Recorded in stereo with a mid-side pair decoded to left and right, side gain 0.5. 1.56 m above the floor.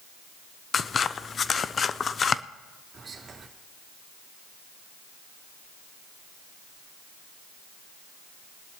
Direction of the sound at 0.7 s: 40° left.